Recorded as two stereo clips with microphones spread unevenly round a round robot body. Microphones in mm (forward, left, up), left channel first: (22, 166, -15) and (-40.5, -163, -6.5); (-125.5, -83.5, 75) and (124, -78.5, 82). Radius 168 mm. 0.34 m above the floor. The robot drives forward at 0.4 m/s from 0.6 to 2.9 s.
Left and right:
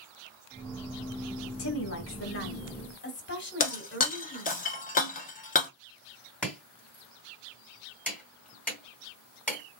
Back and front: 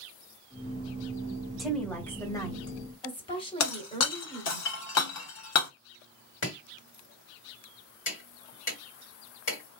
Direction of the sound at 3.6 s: 145° left.